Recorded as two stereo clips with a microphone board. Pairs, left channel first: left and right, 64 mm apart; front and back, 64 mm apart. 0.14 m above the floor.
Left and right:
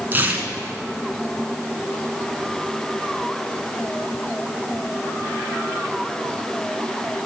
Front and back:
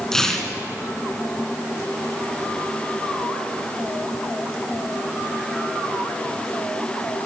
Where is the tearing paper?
75° right, 1.2 m.